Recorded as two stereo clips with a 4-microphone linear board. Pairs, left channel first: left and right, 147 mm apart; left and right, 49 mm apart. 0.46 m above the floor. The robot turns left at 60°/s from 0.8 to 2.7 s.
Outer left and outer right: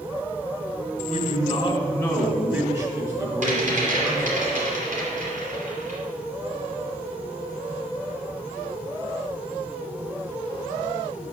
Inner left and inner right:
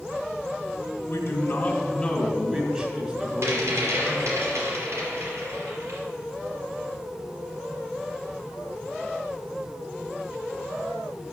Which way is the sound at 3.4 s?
55° right (ahead or behind).